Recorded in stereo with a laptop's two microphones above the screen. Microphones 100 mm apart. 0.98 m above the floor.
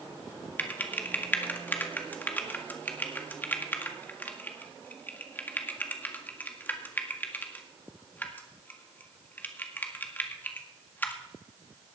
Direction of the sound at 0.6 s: 20° left (ahead or behind).